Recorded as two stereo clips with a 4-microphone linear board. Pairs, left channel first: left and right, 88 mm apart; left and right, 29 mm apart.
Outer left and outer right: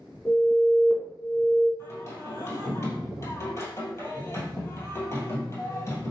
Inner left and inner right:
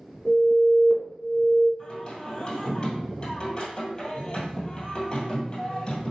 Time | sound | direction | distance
0.2 | an alarm | 25° left (ahead or behind) | 0.9 m
1.8 | singing | 35° left (ahead or behind) | 2 m